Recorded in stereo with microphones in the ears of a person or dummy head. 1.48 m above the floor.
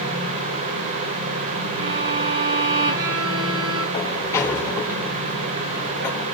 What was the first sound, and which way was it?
A violin, 65° right (ahead or behind).